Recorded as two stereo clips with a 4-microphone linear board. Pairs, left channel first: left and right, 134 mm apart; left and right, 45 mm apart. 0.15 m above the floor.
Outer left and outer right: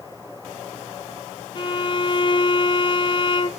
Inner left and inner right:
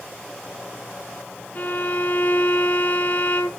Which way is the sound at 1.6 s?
40° left (ahead or behind).